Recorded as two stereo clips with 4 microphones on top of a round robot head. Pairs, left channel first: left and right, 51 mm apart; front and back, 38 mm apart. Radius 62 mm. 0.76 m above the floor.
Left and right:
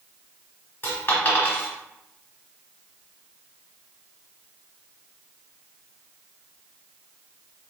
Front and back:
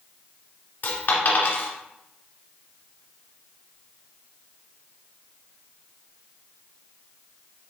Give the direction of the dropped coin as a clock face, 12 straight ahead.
11 o'clock.